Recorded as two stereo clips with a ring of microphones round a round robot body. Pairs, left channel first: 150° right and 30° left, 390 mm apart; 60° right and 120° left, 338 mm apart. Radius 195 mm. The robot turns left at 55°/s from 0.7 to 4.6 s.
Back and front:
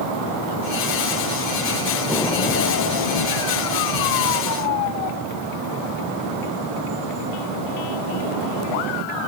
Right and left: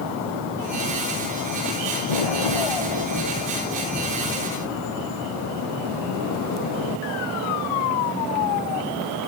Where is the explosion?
55° right; by 5.3 s 165° left.